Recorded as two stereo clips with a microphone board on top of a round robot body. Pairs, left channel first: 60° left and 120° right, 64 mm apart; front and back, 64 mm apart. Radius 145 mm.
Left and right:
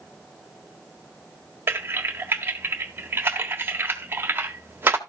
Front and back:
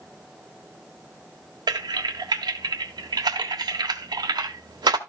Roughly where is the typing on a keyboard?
Behind.